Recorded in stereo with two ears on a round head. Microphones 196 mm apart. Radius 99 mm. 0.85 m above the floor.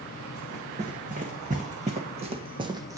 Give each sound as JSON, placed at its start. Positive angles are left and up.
{"t": 0.3, "sound": "running footsteps", "side_deg": -40, "distance_m": 3.0}